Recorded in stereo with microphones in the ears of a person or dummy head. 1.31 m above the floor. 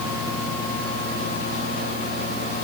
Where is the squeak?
I don't hear a squeak.